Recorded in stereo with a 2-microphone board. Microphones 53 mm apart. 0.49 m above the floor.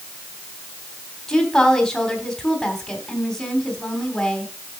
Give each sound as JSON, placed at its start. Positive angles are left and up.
{"t": 1.3, "sound": "a woman speaking", "side_deg": 10, "distance_m": 3.0}